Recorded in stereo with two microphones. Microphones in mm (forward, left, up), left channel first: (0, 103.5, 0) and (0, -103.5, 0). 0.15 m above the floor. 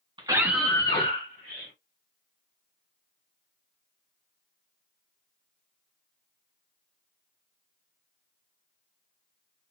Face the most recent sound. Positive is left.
turn(degrees=50)  # may be behind; listen again after turning